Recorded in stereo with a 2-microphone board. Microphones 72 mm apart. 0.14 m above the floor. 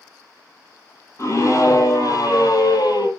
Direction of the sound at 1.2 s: 40° left (ahead or behind).